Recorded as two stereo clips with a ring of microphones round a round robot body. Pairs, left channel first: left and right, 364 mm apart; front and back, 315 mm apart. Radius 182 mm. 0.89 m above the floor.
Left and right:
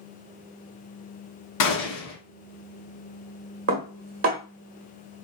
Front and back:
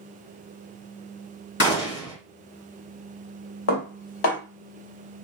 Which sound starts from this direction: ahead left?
A gunshot, at 1.6 s.